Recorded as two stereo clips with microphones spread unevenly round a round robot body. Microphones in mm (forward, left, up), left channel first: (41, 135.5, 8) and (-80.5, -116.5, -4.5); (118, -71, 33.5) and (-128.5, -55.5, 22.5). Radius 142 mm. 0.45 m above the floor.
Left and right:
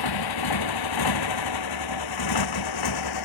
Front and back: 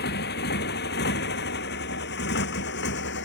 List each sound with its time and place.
0.0 s a motorcycle: 55° left; by 3.3 s 50° left